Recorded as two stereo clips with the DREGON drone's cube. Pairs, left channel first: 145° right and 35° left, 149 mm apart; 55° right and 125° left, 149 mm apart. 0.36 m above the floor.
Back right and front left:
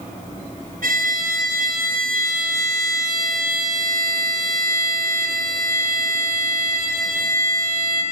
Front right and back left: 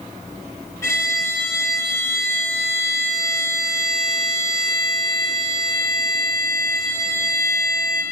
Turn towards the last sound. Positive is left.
turn(degrees=15)